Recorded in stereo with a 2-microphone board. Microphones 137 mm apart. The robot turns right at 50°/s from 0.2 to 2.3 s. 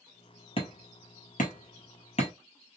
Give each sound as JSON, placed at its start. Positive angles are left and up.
{"t": 0.6, "sound": "hammering", "side_deg": 40, "distance_m": 1.2}